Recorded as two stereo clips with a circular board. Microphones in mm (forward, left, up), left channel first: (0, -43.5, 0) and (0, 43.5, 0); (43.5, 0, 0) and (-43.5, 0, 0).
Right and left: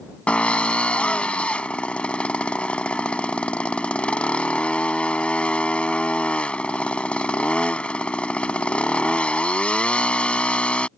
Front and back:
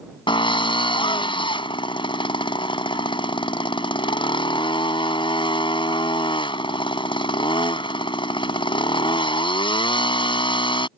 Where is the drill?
10° right.